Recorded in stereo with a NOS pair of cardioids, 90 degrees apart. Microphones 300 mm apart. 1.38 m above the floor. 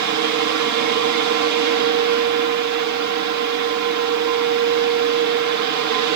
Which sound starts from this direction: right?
A fan, at 0.0 s.